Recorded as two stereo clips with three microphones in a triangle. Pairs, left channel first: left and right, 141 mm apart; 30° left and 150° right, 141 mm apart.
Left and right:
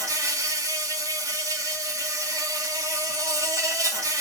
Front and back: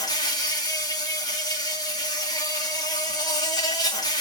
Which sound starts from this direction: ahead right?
An insect, at 0.0 s.